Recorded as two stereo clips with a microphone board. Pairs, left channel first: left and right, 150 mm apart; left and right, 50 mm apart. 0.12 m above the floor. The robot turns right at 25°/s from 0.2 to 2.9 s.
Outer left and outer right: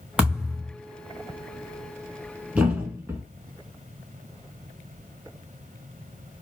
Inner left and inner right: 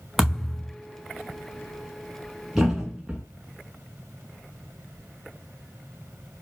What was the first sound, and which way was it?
A thud, 5° right (ahead or behind).